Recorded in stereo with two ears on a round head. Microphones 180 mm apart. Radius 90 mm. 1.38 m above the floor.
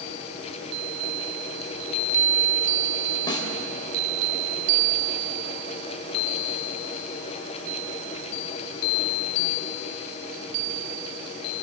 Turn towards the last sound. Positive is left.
turn(degrees=25)  # may be behind; listen again after turning